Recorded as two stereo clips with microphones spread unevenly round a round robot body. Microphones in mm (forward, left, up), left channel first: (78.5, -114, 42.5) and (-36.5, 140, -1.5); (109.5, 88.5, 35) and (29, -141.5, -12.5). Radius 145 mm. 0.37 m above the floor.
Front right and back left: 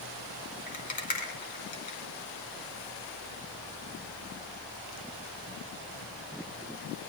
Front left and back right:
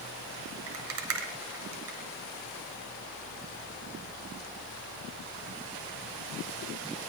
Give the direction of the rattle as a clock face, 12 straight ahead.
4 o'clock.